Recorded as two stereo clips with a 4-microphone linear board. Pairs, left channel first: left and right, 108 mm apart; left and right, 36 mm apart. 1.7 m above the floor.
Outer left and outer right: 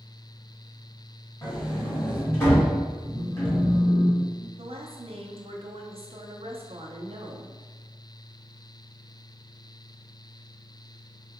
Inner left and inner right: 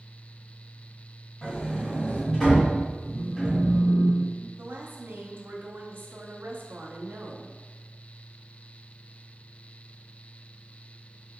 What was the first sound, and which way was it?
A sliding door, 25° left (ahead or behind).